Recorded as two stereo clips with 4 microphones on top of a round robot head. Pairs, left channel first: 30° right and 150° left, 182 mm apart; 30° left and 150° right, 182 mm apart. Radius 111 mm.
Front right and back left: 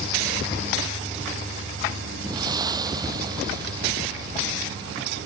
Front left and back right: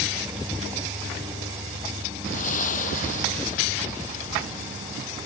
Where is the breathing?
80° left.